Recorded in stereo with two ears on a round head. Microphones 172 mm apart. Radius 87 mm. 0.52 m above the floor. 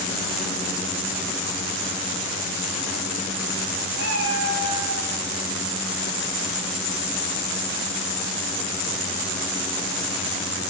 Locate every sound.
4.0 s a cat meowing: 55° right (ahead or behind), 1.7 m; by 5.1 s 80° right, 1.9 m